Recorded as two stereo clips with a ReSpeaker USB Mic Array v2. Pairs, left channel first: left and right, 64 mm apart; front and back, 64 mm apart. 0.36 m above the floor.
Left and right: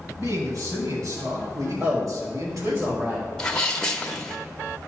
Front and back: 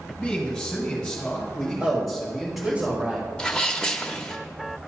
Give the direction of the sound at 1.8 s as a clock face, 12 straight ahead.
4 o'clock.